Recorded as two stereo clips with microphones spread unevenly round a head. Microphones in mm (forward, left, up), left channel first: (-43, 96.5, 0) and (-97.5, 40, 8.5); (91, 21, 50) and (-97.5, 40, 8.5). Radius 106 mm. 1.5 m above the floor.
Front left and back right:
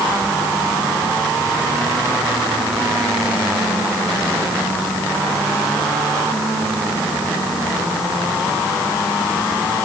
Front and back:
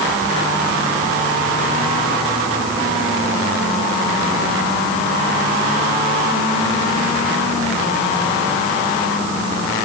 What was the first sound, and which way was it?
Only background noise.